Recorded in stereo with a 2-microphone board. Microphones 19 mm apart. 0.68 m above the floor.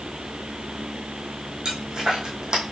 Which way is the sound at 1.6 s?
35° right (ahead or behind).